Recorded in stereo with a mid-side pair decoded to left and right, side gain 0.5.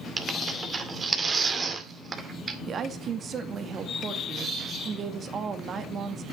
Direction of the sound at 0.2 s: 35° right.